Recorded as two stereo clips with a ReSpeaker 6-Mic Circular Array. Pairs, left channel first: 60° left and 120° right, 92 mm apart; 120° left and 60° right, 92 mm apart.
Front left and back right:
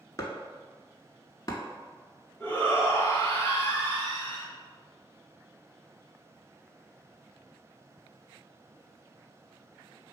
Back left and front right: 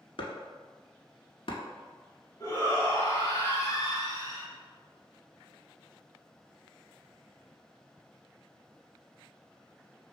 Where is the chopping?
105° left, 0.7 m.